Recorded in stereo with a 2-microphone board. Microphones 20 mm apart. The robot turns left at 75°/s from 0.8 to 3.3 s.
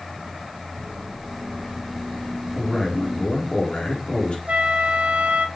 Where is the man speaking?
170° right, 4 m; by 4.4 s 130° left, 4 m.